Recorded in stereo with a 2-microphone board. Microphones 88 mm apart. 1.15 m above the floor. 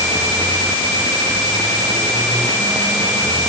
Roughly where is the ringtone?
No ringtone in this recording.